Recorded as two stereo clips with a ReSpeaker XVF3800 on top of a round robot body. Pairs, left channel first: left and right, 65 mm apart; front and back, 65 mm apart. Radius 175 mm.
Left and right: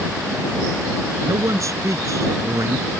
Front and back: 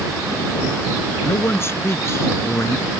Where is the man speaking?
50° right.